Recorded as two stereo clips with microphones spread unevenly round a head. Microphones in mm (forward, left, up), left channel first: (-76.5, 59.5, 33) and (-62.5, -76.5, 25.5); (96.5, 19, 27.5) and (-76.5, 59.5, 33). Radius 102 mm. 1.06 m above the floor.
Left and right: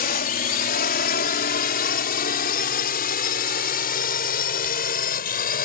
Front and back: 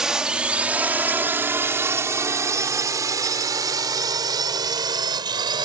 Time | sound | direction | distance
0.0 | a drone | 80° left | ?